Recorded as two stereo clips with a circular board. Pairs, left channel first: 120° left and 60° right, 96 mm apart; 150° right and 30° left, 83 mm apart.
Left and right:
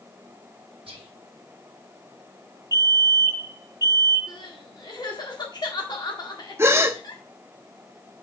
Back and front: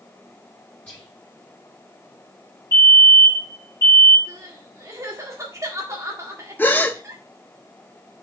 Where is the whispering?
80° right, 0.8 m.